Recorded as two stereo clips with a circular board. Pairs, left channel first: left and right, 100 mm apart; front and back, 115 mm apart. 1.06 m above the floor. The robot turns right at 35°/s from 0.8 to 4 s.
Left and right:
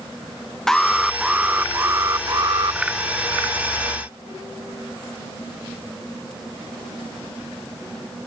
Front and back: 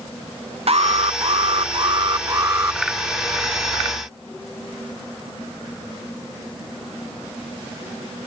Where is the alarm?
175° left; by 2.8 s 115° right.